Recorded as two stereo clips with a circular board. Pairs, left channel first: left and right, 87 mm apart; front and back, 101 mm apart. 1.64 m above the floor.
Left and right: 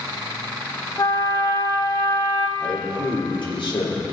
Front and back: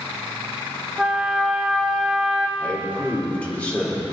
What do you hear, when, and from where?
1.0 s a trumpet: 95° left, 1.2 m
2.6 s a man speaking: 75° left, 4 m